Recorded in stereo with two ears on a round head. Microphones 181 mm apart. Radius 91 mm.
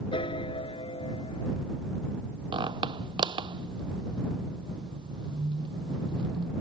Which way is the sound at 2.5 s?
25° right (ahead or behind).